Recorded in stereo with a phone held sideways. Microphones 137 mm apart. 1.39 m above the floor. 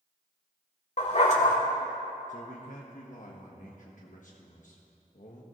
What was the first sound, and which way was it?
A dog barking, 50° left (ahead or behind).